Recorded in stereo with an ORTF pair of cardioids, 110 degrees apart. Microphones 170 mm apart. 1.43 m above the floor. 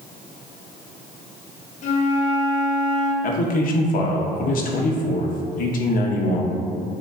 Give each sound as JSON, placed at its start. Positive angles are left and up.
{"t": 1.8, "sound": "a flute", "azimuth_deg": 45, "distance_m": 0.8}
{"t": 3.2, "sound": "a man speaking", "azimuth_deg": 55, "distance_m": 0.8}